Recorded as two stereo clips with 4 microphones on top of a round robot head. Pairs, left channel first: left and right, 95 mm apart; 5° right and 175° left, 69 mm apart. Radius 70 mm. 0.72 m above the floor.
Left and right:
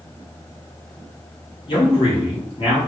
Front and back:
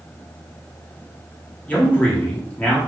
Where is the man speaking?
65° left, 1.2 m.